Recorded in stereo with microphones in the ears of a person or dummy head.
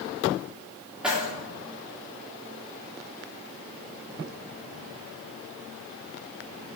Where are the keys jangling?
Centre (ahead or behind), 1.5 m.